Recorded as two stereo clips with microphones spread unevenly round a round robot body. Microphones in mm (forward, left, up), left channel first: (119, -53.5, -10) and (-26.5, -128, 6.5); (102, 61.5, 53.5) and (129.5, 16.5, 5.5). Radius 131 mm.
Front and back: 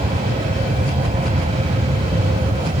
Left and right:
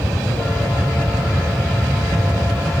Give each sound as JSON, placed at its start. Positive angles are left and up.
{"t": 0.0, "sound": "an aircraft", "azimuth_deg": -120}